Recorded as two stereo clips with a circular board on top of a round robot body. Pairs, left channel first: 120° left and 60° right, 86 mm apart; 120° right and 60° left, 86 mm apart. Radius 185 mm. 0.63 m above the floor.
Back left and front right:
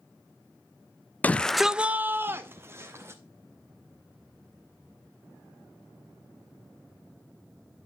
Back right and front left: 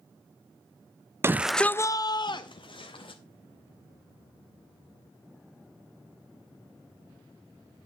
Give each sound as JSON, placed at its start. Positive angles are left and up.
{"t": 1.2, "sound": "a shout", "azimuth_deg": 70, "distance_m": 0.5}